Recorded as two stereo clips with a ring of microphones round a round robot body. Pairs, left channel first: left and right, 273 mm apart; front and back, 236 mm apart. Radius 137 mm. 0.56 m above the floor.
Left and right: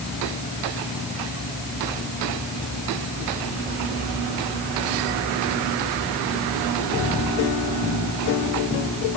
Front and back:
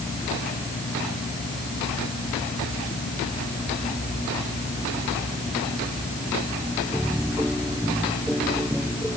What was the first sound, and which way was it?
Only background noise.